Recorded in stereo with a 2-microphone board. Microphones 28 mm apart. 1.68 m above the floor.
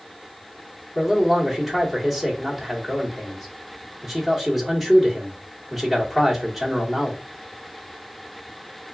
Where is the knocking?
I don't hear knocking.